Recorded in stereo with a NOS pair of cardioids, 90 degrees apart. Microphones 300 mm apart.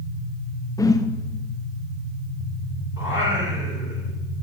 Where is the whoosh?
10° left, 0.6 m.